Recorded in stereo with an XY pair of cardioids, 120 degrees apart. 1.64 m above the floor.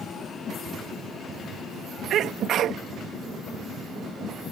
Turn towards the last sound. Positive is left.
turn(degrees=-60)